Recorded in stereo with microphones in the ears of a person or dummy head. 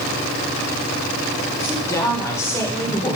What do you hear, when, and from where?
1.6 s a woman speaking: 15° left (ahead or behind), 2.0 m